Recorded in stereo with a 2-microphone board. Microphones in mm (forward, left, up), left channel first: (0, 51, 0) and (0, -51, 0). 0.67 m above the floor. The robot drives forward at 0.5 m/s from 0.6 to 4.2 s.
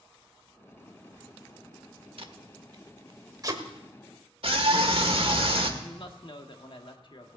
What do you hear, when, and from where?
2.2 s tape being pulled: 60° right (ahead or behind), 1.0 m; by 3.6 s 35° right (ahead or behind), 1.5 m
4.4 s a scream: 65° right (ahead or behind), 1.7 m
5.8 s a woman speaking: 55° left (ahead or behind), 1.4 m